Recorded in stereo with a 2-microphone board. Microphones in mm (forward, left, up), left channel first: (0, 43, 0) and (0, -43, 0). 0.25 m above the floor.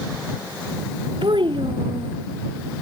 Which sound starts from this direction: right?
A child speaking, at 1.2 s.